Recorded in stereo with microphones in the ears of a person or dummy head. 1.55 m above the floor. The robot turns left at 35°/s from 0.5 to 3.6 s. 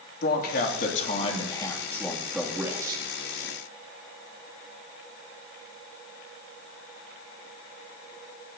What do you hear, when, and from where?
0.2 s a man speaking: 65° left, 2.5 m; by 3.0 s 25° right, 2.5 m